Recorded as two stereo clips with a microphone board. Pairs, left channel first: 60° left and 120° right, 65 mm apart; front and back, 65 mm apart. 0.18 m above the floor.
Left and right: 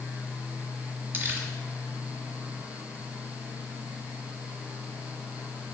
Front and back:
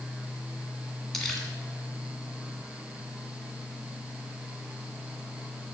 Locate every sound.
1.1 s crumpling: 85° right, 1.9 m